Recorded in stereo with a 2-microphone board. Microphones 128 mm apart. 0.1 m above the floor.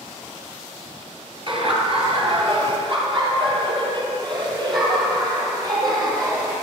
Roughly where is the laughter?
Right.